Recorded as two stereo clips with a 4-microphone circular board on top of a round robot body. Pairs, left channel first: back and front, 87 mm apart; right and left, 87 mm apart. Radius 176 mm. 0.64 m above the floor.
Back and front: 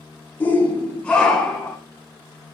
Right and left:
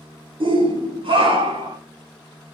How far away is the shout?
About 2.5 m.